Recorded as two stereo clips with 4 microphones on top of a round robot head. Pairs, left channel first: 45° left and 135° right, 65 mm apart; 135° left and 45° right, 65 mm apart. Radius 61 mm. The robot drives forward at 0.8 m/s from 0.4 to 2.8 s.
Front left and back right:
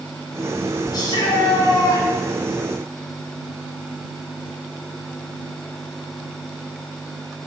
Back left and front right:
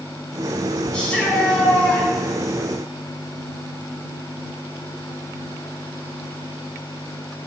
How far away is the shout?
About 4 m.